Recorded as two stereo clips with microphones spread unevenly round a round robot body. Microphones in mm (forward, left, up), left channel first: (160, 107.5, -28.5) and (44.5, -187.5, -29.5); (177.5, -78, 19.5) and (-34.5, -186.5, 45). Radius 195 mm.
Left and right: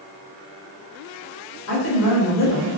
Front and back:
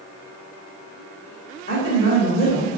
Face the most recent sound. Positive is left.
turn(degrees=50)